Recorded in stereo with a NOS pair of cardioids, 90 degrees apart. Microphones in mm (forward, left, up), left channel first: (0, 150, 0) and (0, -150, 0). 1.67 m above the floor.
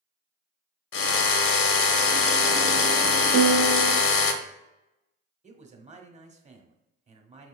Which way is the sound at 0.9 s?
45° left.